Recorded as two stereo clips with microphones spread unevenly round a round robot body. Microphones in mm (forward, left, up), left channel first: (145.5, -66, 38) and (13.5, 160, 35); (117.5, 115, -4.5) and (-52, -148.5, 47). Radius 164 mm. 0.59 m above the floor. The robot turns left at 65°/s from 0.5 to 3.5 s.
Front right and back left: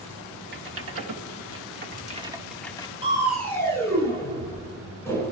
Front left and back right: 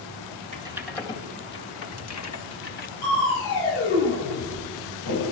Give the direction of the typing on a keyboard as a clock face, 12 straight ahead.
7 o'clock.